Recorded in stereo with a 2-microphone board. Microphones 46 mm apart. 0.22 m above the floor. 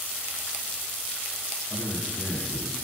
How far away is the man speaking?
About 5.5 m.